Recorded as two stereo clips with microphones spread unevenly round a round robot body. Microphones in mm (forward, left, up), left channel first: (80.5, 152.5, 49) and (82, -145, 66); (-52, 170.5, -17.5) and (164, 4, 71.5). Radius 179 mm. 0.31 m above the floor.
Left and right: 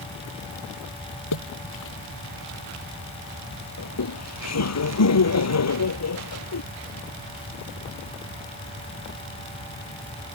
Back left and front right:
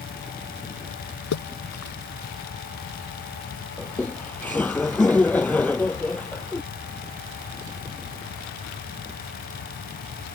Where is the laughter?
55° left.